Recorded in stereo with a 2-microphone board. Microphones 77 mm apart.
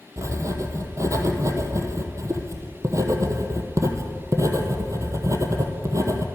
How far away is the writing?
About 1.1 m.